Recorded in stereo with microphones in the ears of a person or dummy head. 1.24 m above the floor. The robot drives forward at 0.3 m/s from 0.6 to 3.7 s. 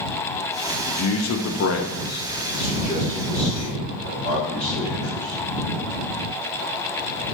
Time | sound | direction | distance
0.9 | a man speaking | 75° left (ahead or behind) | 0.6 m